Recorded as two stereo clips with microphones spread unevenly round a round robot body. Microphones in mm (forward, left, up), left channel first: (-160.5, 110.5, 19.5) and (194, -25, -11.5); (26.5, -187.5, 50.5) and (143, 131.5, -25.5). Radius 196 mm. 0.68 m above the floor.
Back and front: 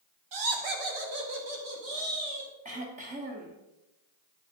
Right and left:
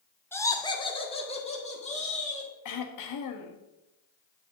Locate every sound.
0.3 s laughter: 20° right, 1.5 m; by 2.5 s 40° right, 4.5 m
2.6 s throat clearing: 80° right, 1.3 m